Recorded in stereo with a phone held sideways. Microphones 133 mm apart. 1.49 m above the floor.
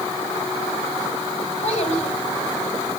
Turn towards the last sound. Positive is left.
turn(degrees=45)  # may be behind; listen again after turning